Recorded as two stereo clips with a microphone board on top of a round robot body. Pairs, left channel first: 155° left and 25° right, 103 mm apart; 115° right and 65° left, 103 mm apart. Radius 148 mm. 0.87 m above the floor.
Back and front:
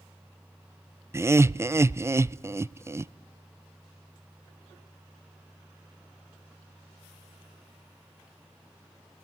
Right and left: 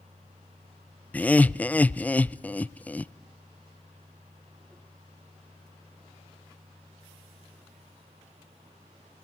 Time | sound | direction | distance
1.1 | laughter | 50° right | 0.5 m